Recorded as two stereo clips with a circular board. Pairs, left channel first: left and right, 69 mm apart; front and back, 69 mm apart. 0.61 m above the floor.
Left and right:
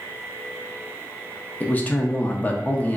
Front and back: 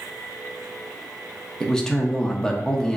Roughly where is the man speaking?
Ahead left.